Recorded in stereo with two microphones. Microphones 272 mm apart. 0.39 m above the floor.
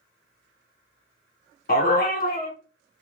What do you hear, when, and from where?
1.7 s a dog barking: 35° left (ahead or behind), 0.9 m